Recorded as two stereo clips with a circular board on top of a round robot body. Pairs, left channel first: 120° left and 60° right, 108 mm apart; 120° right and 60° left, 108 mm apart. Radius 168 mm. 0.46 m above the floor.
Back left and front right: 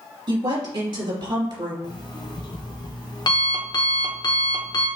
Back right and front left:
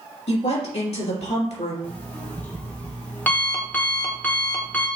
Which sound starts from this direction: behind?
An alarm clock, at 1.8 s.